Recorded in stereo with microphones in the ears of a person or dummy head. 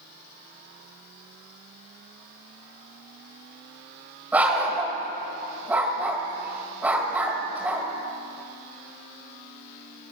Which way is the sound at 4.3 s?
10° right (ahead or behind).